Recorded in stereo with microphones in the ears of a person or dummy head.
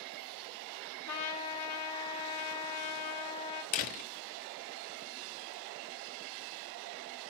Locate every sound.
1.1 s a trumpet: 80° left, 1.6 m
3.7 s a door slam: 30° left (ahead or behind), 0.6 m